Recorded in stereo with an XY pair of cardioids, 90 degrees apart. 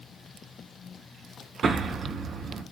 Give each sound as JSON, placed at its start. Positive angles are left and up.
{"t": 1.6, "sound": "an explosion", "azimuth_deg": -65, "distance_m": 1.6}